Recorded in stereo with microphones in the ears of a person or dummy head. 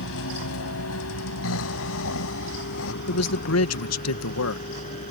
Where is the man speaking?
80° left.